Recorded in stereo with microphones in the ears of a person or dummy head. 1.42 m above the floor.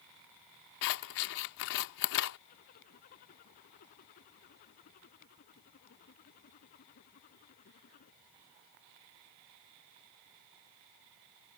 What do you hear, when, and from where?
0.8 s scissors: 55° left (ahead or behind)
2.5 s a zipper: 50° left (ahead or behind)